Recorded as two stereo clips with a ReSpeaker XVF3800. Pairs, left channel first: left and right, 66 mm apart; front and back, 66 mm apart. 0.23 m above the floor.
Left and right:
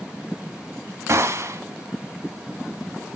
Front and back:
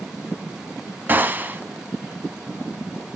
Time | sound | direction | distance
1.1 | a gunshot | 125° right | 0.7 m